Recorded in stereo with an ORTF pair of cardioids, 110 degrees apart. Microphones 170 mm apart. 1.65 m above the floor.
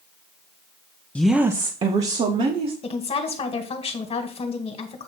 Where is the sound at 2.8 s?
35° left, 1.8 m.